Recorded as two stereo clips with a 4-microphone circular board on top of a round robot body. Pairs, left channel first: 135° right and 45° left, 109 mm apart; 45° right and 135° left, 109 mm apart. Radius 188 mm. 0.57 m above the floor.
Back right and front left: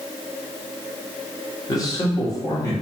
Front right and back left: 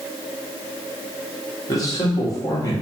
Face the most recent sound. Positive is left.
turn(degrees=-90)